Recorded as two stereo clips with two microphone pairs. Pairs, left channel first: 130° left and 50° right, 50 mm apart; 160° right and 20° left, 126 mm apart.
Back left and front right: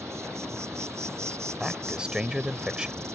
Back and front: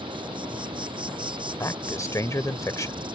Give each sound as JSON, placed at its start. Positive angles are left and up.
{"t": 0.0, "sound": "an insect", "azimuth_deg": -30}
{"t": 1.6, "sound": "a man speaking", "azimuth_deg": -110}